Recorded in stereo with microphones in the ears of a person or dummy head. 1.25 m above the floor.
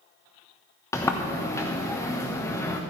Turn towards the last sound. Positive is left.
turn(degrees=15)  # may be behind; listen again after turning